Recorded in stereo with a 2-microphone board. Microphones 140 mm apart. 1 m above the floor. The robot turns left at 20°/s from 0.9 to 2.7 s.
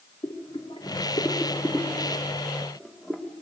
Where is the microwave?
No microwave in this recording.